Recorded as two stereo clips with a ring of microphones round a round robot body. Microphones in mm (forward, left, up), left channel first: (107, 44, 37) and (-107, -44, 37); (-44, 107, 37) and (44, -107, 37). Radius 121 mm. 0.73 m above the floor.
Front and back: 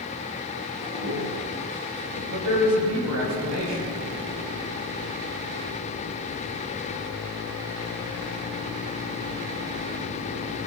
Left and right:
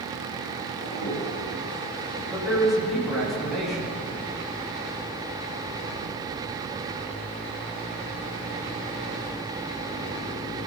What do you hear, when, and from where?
0.8 s a toilet flushing: straight behind, 7 m
2.3 s a man speaking: 155° right, 6 m